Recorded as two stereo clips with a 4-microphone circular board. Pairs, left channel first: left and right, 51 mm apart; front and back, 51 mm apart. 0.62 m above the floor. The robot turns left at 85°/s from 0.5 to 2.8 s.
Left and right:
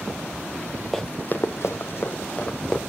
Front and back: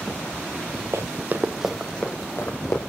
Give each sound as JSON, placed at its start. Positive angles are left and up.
{"t": 0.9, "sound": "running footsteps", "azimuth_deg": 170, "distance_m": 1.1}